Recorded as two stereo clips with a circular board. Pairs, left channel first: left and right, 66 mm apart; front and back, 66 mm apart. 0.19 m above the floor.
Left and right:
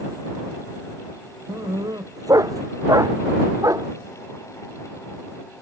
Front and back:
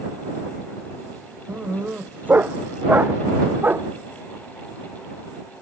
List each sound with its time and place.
1.5 s a dog barking: 115° right; by 3.9 s 120° right